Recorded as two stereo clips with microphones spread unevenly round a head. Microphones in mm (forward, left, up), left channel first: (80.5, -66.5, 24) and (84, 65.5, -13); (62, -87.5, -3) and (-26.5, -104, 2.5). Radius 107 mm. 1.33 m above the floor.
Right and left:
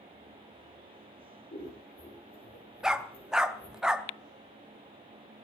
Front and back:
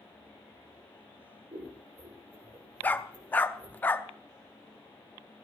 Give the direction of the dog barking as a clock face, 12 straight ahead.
1 o'clock.